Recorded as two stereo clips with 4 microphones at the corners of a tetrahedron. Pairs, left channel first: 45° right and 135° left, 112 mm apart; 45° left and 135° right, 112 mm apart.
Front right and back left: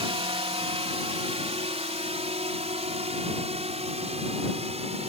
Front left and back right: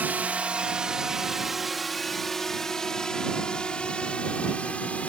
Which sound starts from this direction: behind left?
A drone, at 0.0 s.